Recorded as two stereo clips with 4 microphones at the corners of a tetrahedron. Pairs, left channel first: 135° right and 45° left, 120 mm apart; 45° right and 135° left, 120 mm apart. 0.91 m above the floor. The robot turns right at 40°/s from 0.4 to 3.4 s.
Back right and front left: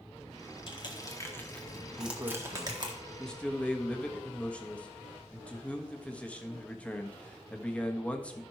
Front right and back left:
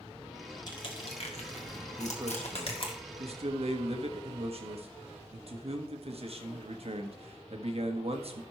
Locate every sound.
0.7 s crushing: 95° right, 1.8 m; by 2.9 s 5° right, 1.8 m
2.0 s a man speaking: 90° left, 1.3 m; by 8.4 s 145° left, 1.3 m